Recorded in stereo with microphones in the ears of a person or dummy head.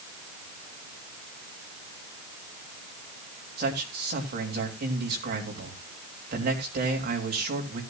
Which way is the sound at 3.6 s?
50° right (ahead or behind).